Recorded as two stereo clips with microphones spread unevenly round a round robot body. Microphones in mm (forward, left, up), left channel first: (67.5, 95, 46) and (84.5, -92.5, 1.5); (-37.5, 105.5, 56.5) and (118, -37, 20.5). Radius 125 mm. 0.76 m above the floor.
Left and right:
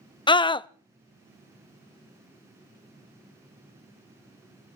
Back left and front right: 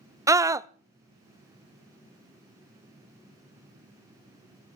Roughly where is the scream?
Ahead left.